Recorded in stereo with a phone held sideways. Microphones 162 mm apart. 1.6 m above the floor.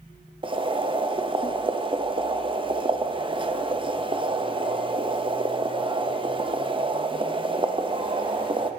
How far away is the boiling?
About 0.6 m.